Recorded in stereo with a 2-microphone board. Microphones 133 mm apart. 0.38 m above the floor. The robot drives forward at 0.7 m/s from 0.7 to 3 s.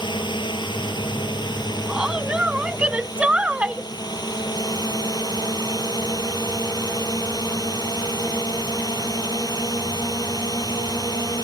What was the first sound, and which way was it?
A drone, 35° left (ahead or behind).